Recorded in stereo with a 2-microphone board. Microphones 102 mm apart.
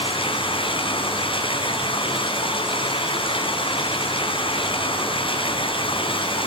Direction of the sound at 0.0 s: 60° left (ahead or behind).